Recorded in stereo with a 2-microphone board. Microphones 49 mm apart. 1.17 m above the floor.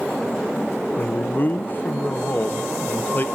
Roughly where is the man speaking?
Left.